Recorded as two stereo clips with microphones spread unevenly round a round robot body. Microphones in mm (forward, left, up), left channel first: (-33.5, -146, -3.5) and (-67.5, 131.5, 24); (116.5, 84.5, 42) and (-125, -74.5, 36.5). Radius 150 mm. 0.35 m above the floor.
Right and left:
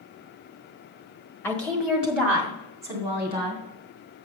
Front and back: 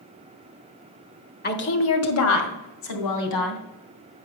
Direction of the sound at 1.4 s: 10° right.